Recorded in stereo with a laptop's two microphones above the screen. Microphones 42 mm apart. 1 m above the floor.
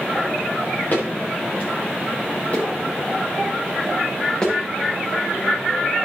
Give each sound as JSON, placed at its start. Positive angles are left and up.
{"t": 0.9, "sound": "footsteps", "side_deg": 40, "distance_m": 5.0}